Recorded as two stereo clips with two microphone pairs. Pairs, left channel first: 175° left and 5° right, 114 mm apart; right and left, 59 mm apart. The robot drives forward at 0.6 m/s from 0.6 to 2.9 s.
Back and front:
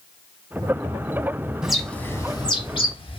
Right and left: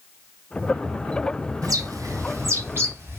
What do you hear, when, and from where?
1.6 s a bird: 80° left, 0.6 m; by 3.2 s 140° left, 0.9 m